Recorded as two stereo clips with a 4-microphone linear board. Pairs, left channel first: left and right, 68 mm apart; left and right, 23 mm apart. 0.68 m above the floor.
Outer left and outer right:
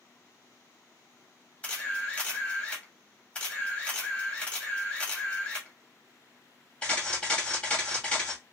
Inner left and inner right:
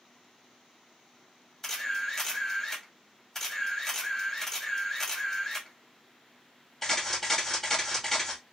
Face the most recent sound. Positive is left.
turn(degrees=15)  # may be behind; listen again after turning